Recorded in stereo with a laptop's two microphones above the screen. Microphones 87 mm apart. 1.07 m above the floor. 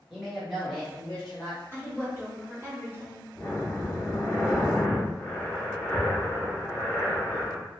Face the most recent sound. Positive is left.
turn(degrees=25)  # may be behind; listen again after turning